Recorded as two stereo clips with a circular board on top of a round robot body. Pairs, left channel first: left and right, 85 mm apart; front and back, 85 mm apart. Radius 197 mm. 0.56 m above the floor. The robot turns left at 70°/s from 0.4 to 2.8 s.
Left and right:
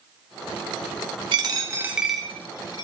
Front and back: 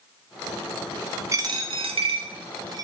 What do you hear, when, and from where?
1.3 s a dropped coin: 125° right, 0.6 m; by 2.9 s 135° left, 0.6 m